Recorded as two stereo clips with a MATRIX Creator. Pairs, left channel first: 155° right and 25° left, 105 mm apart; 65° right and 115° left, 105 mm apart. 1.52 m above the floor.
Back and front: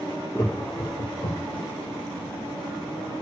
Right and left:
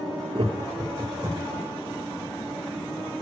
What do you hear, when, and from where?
0.3 s laughter: 140° left, 0.9 m; by 1.6 s 165° right, 1.5 m